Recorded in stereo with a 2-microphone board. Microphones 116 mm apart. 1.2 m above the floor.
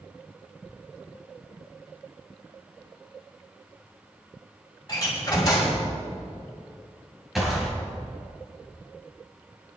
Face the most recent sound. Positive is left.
turn(degrees=0)  # may be behind; listen again after turning